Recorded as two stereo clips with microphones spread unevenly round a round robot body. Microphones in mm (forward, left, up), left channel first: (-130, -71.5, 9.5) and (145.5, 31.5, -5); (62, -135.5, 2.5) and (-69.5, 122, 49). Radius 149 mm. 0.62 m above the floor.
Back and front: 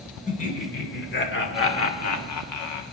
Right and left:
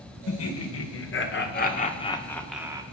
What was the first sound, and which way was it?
Laughter, 90° right.